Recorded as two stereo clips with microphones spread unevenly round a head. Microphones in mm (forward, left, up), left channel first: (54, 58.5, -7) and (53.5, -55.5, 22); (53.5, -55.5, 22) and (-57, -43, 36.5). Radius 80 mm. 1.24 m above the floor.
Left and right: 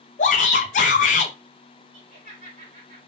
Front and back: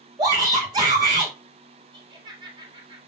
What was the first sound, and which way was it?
A shout, 110° left.